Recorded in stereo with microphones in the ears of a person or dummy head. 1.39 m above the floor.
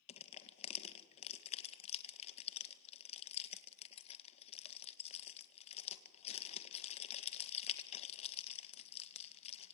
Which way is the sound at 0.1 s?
35° left (ahead or behind).